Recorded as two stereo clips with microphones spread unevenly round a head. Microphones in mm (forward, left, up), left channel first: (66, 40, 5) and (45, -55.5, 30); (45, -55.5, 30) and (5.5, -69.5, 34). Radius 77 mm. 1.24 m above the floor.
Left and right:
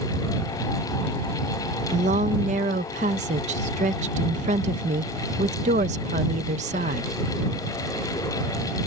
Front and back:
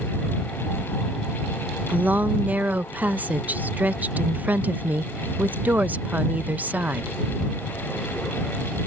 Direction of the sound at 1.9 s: 110° right.